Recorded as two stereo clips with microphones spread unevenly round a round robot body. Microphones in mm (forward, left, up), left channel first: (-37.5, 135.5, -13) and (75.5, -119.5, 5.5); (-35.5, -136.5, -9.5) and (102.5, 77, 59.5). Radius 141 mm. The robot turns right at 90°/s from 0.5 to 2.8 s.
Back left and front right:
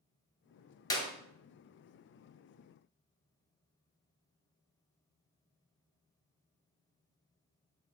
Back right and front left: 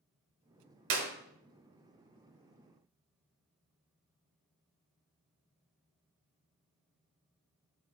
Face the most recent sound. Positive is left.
turn(degrees=-150)